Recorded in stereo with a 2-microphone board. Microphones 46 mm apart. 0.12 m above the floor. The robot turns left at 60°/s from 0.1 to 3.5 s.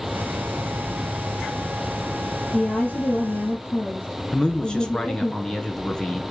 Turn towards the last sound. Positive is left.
turn(degrees=20)  # may be behind; listen again after turning